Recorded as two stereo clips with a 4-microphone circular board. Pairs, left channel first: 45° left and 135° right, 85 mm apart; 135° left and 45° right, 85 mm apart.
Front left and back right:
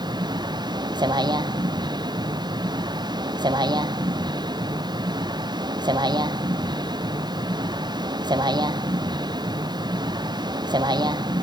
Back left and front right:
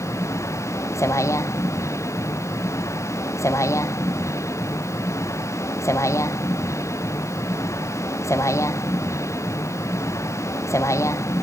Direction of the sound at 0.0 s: 170° right.